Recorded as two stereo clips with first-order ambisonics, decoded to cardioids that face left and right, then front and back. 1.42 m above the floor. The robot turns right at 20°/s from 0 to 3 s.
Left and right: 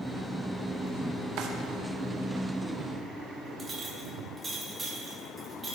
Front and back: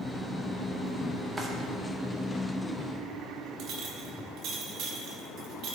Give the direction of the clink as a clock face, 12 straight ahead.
5 o'clock.